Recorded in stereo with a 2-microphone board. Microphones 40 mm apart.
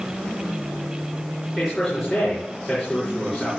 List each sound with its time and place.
1.6 s a man speaking: 5° left (ahead or behind), 6.5 m